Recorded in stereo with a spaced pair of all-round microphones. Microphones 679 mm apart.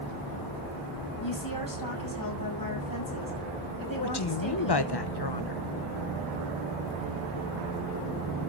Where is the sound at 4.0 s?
35° left (ahead or behind), 1.0 m.